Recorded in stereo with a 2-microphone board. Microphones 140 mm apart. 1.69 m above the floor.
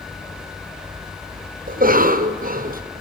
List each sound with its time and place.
1.7 s a cough: 80° right, 1.1 m